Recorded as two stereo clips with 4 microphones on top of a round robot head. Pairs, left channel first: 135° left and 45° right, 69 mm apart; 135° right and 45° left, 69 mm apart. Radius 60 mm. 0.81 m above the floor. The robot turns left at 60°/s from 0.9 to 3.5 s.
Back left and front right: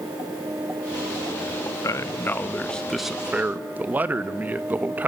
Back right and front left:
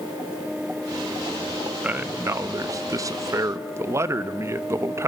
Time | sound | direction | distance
1.8 | a man speaking | 110° left | 1.0 m